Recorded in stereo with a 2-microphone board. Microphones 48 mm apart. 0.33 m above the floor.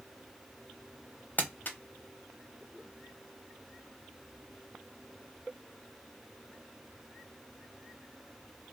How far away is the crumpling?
About 0.6 m.